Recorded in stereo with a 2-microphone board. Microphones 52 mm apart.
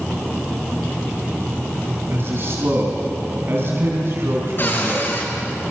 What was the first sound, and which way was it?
A man speaking, 50° right (ahead or behind).